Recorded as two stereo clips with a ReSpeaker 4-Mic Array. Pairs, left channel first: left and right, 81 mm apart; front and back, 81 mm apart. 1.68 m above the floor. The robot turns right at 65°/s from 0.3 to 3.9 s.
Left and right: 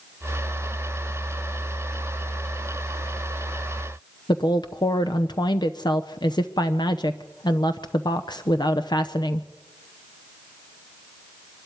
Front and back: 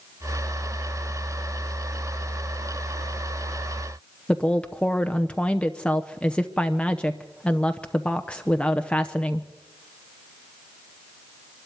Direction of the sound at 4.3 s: 75° left.